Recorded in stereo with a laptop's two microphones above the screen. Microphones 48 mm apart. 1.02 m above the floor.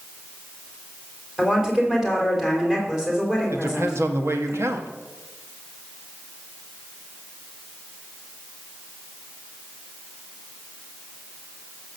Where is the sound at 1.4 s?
10° right (ahead or behind), 3.5 m.